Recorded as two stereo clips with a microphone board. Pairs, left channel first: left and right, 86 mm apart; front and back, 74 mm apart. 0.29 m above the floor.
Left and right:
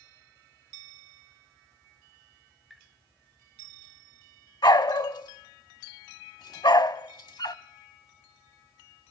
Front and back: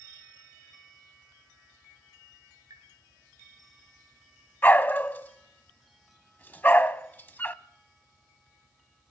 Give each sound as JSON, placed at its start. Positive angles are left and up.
{"t": 2.7, "sound": "tapping", "azimuth_deg": 180, "distance_m": 3.5}
{"t": 4.6, "sound": "a dog barking", "azimuth_deg": 60, "distance_m": 0.6}